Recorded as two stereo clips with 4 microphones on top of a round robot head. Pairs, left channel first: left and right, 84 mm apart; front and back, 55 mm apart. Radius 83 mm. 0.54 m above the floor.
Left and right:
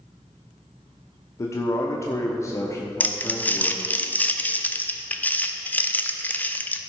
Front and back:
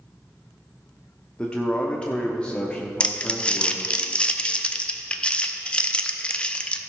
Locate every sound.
1.4 s a man speaking: 60° left, 1.1 m
3.0 s crumpling: 45° left, 0.9 m